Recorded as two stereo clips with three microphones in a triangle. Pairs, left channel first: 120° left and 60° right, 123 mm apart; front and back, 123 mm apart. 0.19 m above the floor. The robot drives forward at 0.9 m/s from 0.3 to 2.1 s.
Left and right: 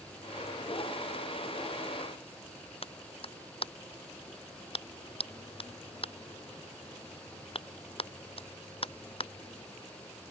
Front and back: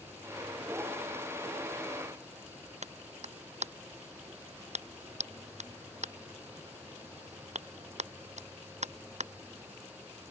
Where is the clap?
160° left.